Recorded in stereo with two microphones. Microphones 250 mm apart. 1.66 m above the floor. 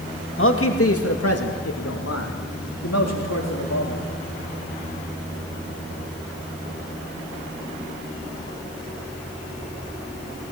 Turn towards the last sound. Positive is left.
turn(degrees=80)